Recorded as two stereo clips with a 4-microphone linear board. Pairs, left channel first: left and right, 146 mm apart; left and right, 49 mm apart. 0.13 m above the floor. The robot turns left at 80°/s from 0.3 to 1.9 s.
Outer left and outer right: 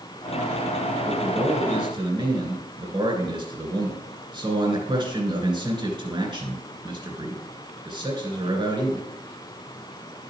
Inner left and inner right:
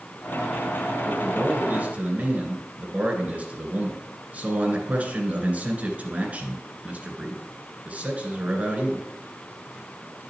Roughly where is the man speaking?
Ahead right.